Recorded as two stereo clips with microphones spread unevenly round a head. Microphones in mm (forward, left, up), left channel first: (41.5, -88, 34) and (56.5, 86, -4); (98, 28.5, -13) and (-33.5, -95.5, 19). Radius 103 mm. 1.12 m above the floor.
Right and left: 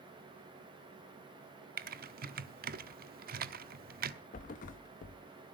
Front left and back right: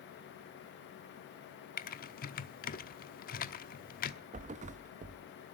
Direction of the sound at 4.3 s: 110° right.